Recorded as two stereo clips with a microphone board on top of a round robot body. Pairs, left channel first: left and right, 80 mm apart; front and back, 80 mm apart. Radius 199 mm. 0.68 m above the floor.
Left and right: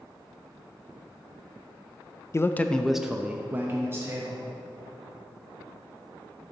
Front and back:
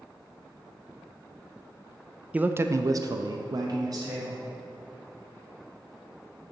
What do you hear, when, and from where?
2.3 s a man speaking: 115° left, 0.6 m; by 4.4 s 145° right, 1.2 m